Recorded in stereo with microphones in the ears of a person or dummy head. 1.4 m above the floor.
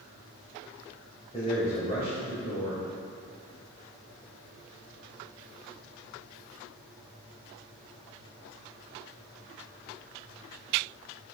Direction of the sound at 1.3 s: 30° left (ahead or behind).